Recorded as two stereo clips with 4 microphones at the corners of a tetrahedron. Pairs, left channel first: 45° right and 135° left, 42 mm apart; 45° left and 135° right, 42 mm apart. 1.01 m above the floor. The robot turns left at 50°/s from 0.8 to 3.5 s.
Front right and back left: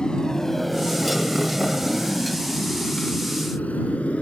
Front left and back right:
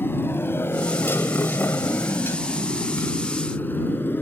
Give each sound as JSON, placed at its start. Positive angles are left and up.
{"t": 0.0, "sound": "a motorcycle", "azimuth_deg": 25}